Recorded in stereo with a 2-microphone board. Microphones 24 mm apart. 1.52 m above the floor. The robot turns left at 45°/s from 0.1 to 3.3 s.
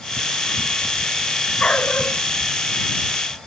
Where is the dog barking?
60° left (ahead or behind); by 2.2 s 80° left.